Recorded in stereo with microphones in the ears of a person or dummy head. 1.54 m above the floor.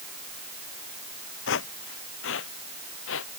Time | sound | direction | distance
1.5 | footsteps | 65° left (ahead or behind) | ?